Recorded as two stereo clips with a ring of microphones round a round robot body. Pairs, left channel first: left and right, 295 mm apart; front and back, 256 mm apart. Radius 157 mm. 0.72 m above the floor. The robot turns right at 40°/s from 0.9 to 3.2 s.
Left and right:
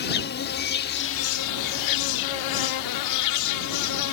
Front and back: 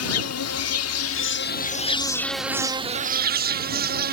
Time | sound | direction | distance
0.0 | an insect | 30° left | ?